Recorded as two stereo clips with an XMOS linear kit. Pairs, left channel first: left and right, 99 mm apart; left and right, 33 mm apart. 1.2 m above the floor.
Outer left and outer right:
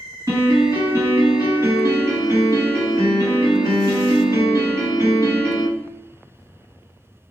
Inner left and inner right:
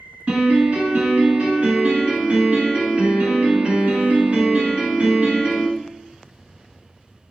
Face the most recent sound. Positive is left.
turn(degrees=-30)  # may be behind; listen again after turning